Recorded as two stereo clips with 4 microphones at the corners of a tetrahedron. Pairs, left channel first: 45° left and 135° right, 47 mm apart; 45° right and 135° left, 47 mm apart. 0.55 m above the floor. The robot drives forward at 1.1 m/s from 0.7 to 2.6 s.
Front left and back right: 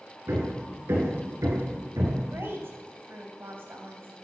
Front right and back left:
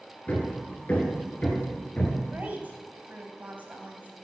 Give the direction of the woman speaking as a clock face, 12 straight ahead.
6 o'clock.